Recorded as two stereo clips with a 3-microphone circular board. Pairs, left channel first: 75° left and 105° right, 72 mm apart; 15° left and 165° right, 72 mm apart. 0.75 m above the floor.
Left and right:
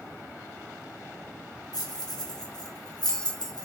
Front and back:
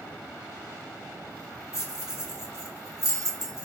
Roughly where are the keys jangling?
Ahead left.